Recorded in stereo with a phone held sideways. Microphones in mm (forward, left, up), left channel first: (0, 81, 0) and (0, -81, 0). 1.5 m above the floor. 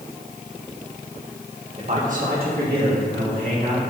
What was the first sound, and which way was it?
A man speaking, 45° right (ahead or behind).